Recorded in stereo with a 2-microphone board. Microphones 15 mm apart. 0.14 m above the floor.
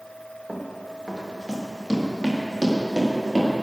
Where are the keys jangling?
I don't hear keys jangling.